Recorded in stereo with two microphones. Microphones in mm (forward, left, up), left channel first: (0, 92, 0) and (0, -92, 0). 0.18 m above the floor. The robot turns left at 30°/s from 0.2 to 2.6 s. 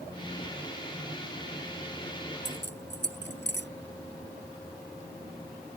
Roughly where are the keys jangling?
Left.